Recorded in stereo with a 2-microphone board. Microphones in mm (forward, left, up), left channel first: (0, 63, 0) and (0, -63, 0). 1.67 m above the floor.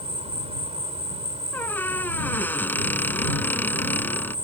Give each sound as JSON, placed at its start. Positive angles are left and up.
{"t": 0.0, "sound": "an insect", "side_deg": -55}
{"t": 1.5, "sound": "a squeak", "side_deg": 15}